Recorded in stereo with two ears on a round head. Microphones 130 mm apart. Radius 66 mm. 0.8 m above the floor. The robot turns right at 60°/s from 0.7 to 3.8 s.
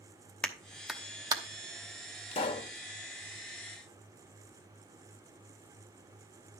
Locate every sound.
0.4 s a clap: 10° left (ahead or behind), 0.9 m; by 1.4 s 30° right (ahead or behind), 0.9 m
2.3 s a pop: 45° left (ahead or behind), 1.1 m; by 2.7 s 25° left (ahead or behind), 1.1 m